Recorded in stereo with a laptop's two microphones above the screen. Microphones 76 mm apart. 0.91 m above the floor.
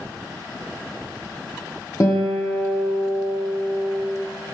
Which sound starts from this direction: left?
A guitar, at 2.0 s.